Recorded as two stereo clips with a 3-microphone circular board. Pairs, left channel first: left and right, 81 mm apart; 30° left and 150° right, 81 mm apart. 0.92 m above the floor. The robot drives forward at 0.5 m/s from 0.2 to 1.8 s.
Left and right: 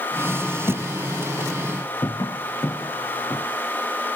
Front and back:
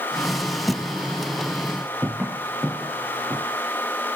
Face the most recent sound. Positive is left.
turn(degrees=145)